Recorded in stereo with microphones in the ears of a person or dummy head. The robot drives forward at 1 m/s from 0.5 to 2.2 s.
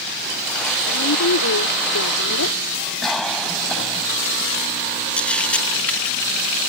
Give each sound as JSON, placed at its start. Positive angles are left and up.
{"t": 0.9, "sound": "a woman speaking", "side_deg": 80}
{"t": 3.0, "sound": "a cough", "side_deg": 5}
{"t": 5.2, "sound": "a camera shutter", "side_deg": 10}